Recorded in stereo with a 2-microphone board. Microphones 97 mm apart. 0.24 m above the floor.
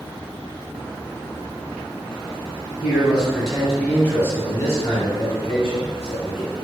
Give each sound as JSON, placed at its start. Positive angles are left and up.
{"t": 2.8, "sound": "a man speaking", "side_deg": -15, "distance_m": 1.4}